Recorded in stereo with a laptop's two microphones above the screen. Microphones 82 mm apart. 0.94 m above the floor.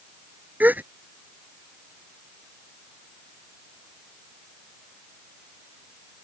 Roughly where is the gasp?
Right.